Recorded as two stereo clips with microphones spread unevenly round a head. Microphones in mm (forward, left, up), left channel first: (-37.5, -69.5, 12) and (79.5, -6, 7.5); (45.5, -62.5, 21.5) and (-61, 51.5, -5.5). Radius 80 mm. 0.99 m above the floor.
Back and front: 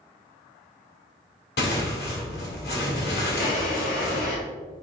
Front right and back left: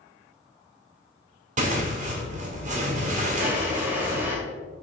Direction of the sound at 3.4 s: 145° right.